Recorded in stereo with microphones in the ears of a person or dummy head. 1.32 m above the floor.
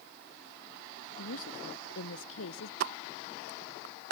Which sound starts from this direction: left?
A woman speaking, at 1.2 s.